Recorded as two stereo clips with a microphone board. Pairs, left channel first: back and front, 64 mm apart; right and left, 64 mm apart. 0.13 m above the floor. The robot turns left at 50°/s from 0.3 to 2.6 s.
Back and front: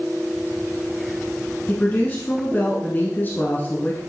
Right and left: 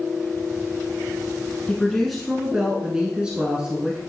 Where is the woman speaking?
160° right, 1.2 m; by 4.0 s 155° left, 1.2 m.